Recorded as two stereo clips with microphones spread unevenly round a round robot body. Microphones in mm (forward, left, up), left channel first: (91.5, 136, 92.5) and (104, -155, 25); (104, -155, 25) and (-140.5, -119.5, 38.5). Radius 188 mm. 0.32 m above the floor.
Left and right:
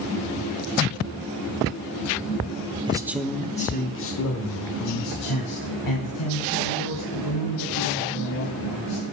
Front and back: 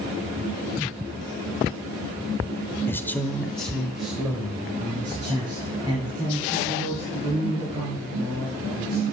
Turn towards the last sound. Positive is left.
turn(degrees=90)